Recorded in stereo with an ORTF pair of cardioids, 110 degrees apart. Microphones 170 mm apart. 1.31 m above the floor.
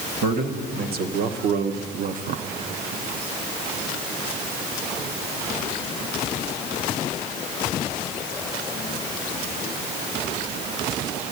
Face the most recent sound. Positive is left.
turn(degrees=-50)